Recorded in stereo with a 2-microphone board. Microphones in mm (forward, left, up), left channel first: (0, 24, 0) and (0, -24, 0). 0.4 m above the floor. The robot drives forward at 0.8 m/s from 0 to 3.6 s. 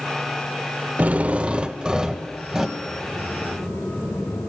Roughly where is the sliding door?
Left.